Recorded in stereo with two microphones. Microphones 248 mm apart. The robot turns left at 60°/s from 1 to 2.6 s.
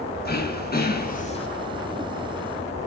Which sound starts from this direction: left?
Throat clearing, at 0.2 s.